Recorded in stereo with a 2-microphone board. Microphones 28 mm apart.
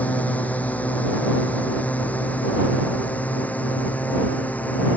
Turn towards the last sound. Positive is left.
turn(degrees=65)  # may be behind; listen again after turning